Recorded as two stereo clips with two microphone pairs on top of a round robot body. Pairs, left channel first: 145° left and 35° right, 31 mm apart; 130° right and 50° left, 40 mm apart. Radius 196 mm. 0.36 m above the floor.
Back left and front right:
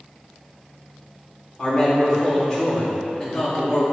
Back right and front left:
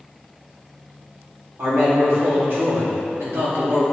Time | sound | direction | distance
1.6 | a man speaking | 75° left | 2 m